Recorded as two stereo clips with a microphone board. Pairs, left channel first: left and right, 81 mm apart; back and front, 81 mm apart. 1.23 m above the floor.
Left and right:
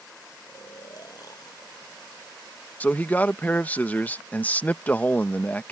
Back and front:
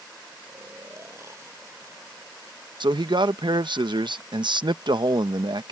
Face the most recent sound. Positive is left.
turn(degrees=20)